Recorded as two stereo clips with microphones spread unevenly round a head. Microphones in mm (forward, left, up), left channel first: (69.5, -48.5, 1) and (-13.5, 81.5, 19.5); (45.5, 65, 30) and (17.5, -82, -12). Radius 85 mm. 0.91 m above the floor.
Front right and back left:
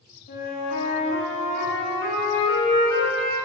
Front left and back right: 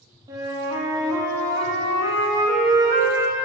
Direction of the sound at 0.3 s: 35° right.